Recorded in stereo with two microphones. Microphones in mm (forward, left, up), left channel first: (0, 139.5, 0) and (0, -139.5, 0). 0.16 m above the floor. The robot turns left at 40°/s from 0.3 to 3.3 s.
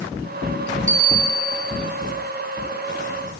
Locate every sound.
0.9 s a bell: 150° right, 7 m; by 1.7 s 175° left, 7 m